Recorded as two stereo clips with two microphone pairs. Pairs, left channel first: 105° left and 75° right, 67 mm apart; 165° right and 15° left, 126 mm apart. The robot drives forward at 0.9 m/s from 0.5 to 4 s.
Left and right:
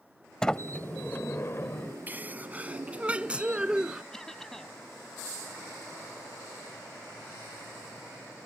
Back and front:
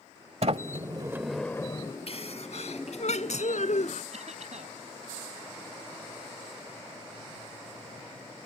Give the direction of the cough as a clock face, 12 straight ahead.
11 o'clock.